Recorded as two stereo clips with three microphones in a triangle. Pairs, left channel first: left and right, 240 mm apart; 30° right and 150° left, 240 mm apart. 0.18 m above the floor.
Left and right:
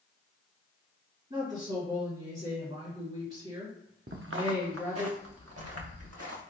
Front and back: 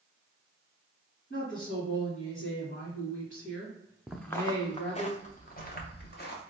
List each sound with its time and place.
1.3 s a woman speaking: 35° right, 1.6 m
4.1 s footsteps: 125° right, 0.7 m; by 6.4 s 75° right, 1.9 m